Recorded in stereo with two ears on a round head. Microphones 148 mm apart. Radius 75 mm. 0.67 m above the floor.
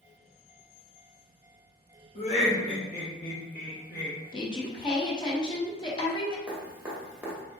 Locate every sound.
2.1 s laughter: 40° left (ahead or behind), 1.1 m; by 4.2 s 50° left (ahead or behind), 1.0 m
4.3 s a woman speaking: 30° left (ahead or behind), 0.7 m
6.5 s dripping: 10° right (ahead or behind), 0.9 m